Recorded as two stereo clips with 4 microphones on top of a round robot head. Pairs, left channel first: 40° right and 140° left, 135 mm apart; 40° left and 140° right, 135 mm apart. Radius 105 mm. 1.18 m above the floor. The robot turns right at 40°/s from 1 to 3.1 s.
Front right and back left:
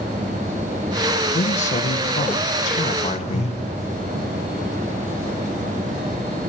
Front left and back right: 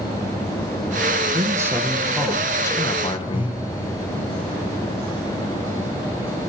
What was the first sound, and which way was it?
A man speaking, 80° right.